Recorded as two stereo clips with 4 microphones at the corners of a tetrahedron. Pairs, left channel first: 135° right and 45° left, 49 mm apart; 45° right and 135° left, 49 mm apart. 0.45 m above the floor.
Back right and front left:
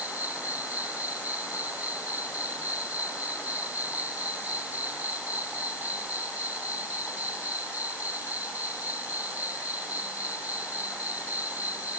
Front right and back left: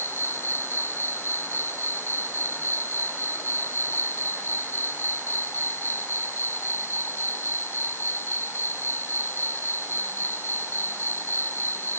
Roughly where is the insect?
Ahead.